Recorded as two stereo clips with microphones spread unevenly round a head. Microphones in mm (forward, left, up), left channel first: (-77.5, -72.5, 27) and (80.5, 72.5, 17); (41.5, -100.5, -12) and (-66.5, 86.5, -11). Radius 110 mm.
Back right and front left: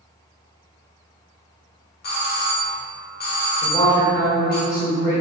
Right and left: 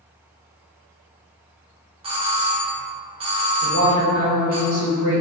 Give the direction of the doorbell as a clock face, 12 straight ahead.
6 o'clock.